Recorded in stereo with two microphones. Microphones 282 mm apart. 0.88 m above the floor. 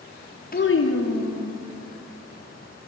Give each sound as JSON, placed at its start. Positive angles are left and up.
{"t": 0.5, "sound": "a child speaking", "side_deg": 30, "distance_m": 0.6}